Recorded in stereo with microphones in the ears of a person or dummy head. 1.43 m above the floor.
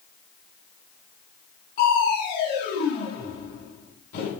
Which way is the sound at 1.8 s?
50° left (ahead or behind).